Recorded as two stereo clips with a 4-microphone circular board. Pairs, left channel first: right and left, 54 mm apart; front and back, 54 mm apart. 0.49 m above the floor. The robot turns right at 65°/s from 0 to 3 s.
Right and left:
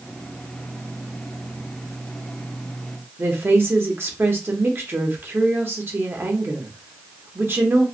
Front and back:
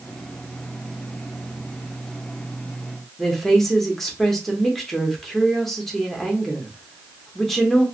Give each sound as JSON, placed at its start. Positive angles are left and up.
{"t": 3.2, "sound": "a woman speaking", "azimuth_deg": 85, "distance_m": 0.9}